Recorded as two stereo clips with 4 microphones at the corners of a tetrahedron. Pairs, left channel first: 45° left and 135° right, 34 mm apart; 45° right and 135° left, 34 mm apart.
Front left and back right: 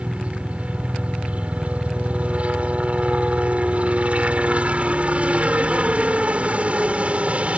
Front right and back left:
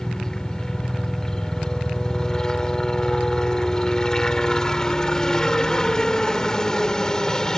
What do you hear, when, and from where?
0.0 s a helicopter: 110° right